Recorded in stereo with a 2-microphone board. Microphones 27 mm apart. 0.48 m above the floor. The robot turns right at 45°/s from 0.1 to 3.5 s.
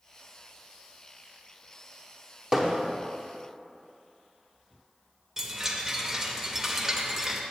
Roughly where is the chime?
Centre.